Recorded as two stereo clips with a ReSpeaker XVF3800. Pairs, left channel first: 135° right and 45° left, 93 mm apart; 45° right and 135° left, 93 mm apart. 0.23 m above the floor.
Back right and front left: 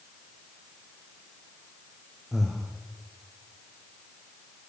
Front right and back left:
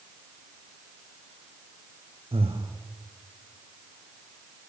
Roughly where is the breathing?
Behind left.